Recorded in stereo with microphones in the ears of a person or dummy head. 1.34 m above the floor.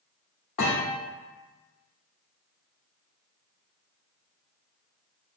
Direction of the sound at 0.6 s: 40° left (ahead or behind).